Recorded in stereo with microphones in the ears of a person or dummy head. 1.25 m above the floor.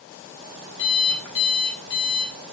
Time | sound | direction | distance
0.8 | an alarm clock | 55° left (ahead or behind) | 6 m